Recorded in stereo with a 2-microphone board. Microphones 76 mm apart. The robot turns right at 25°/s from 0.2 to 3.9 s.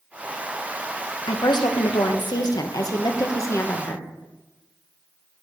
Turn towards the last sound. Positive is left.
turn(degrees=145)